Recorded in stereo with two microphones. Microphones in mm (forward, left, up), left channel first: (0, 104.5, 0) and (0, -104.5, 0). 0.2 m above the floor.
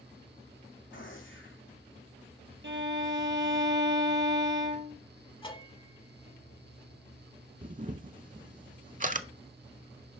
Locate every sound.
0.9 s a gunshot: 70° left (ahead or behind), 2 m
2.6 s a violin: 65° right (ahead or behind), 0.8 m
5.4 s a bell: 25° left (ahead or behind), 0.9 m
7.6 s a camera shutter: 40° right (ahead or behind), 0.5 m